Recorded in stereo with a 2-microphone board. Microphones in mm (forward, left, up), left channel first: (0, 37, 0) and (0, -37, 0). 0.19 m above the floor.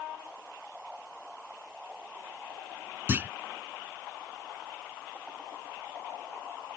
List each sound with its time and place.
3.1 s a clunk: 30° right (ahead or behind)